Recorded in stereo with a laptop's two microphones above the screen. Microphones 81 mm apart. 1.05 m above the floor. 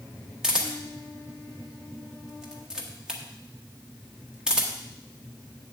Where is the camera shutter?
10° right (ahead or behind), 0.9 m.